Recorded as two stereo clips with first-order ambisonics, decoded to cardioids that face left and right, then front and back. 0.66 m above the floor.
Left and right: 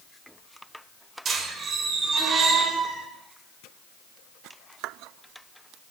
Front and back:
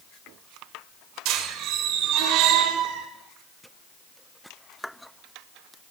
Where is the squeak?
150° right, 1.2 m.